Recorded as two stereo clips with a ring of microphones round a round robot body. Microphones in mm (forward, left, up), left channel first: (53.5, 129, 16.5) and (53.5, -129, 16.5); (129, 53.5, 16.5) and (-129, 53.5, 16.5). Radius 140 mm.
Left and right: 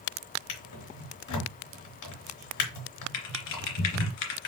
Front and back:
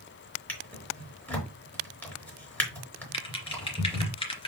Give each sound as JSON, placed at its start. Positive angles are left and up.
{"t": 0.5, "sound": "a drawer", "azimuth_deg": 85, "distance_m": 3.5}
{"t": 3.1, "sound": "typing on a keyboard", "azimuth_deg": 70, "distance_m": 2.5}